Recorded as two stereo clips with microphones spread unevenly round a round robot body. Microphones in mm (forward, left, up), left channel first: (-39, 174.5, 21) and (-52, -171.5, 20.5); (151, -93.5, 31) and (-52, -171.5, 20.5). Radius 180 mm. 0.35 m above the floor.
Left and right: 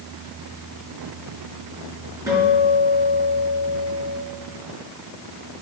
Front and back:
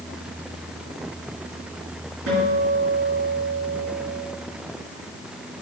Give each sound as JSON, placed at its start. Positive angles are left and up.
{"t": 2.3, "sound": "a guitar", "azimuth_deg": -175, "distance_m": 4.5}